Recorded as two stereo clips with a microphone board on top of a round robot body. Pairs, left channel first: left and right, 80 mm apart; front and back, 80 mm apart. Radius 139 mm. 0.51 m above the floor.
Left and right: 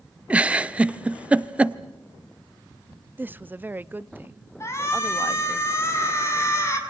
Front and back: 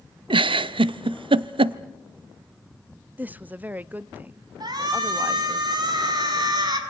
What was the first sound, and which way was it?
A giggle, 165° right.